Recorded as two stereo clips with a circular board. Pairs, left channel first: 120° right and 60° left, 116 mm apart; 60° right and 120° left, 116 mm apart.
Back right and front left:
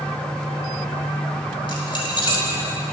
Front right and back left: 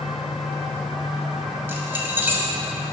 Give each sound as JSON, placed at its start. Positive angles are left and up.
{"t": 1.7, "sound": "keys jangling", "azimuth_deg": -170, "distance_m": 1.5}